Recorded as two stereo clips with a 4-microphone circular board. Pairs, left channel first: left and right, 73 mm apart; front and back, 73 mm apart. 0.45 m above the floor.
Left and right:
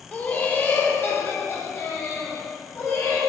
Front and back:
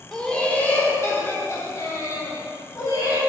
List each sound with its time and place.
0.1 s laughter: 70° left, 0.9 m; by 3.2 s 35° left, 2.5 m